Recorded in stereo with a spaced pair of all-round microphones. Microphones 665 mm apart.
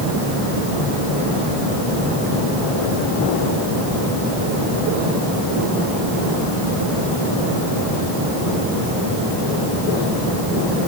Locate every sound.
Only background noise.